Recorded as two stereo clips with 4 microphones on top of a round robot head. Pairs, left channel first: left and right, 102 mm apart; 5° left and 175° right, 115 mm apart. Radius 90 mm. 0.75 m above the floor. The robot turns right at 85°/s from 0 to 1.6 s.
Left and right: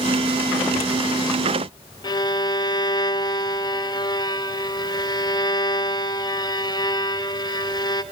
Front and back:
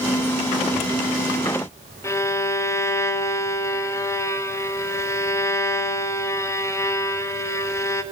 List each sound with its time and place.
2.0 s a violin: 60° left, 1.0 m